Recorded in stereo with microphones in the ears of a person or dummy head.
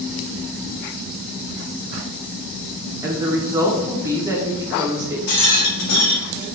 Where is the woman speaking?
30° right (ahead or behind), 1.1 m.